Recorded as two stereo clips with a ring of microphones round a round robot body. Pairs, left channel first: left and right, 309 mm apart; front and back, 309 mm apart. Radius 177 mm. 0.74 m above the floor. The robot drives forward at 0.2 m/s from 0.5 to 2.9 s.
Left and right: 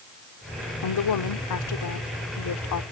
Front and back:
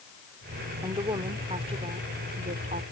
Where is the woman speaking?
100° left; by 2.8 s 115° left.